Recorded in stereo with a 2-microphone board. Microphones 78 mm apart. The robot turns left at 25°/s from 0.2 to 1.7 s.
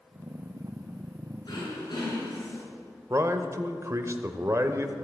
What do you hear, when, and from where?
1.4 s throat clearing: 50° left (ahead or behind), 6 m; by 2.6 s 55° left (ahead or behind), 6 m
3.1 s a man speaking: 40° right (ahead or behind), 1.1 m